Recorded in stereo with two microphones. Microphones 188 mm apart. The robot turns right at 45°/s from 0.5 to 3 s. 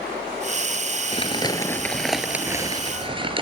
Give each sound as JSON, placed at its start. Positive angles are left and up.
{"t": 1.1, "sound": "crumpling", "azimuth_deg": 135, "distance_m": 1.2}